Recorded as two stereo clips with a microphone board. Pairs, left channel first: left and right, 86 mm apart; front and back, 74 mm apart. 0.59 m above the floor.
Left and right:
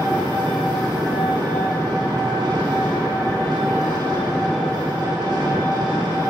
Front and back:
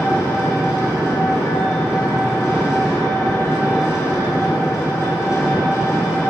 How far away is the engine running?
About 2.5 m.